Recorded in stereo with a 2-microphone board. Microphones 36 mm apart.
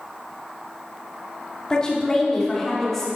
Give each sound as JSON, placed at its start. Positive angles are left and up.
{"t": 1.7, "sound": "a woman speaking", "side_deg": 20, "distance_m": 2.5}